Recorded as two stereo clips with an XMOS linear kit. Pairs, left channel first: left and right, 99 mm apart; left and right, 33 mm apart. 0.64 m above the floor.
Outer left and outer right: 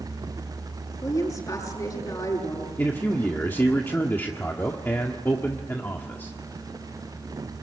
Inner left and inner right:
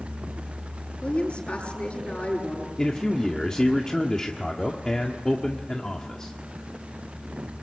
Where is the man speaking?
20° left (ahead or behind), 1.5 m.